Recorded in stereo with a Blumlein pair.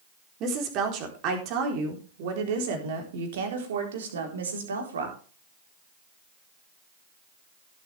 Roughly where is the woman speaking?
Ahead right.